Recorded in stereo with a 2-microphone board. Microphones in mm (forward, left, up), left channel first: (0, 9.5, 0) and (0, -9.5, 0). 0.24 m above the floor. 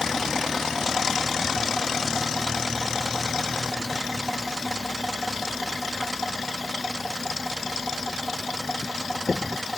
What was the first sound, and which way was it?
Only background noise.